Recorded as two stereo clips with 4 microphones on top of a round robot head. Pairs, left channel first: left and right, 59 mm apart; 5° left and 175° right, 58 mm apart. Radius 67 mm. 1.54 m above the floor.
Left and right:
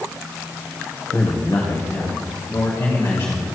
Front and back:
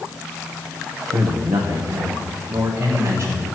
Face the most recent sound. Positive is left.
turn(degrees=145)